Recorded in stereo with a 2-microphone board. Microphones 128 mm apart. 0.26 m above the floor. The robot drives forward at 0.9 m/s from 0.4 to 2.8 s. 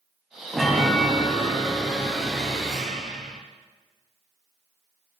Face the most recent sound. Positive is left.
turn(degrees=0)  # may be behind; listen again after turning